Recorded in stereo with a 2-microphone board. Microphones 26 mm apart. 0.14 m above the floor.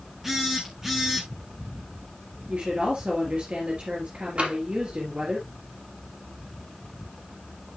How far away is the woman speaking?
About 2.5 m.